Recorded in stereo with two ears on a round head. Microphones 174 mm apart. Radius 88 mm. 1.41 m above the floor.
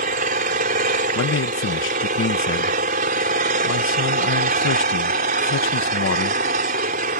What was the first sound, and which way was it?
An engine running, 45° right (ahead or behind).